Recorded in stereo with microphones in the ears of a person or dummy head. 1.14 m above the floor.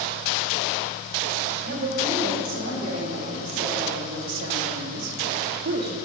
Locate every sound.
1.6 s a woman speaking: 50° right (ahead or behind), 3.5 m; by 6.0 s 45° right (ahead or behind), 1.0 m